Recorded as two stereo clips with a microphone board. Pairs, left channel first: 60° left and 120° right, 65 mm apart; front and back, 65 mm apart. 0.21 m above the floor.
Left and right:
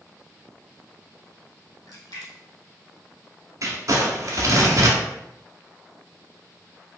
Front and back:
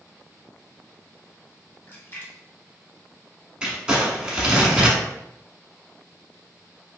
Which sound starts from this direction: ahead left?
A splash, at 1.9 s.